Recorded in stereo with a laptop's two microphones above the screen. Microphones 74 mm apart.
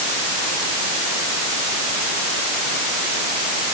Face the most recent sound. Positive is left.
No sound to turn to.